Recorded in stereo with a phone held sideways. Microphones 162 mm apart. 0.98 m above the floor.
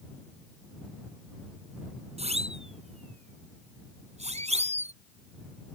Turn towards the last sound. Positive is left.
turn(degrees=-45)  # may be behind; listen again after turning